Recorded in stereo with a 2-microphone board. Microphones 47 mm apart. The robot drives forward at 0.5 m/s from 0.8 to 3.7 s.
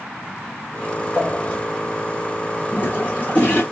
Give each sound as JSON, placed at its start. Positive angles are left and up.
{"t": 1.1, "sound": "a pop", "side_deg": 55, "distance_m": 4.0}
{"t": 2.7, "sound": "a toilet flushing", "side_deg": 45, "distance_m": 1.6}